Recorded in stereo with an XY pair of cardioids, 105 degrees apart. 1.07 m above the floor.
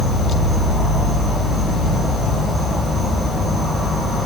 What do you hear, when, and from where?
0.0 s an insect: 20° left, 0.8 m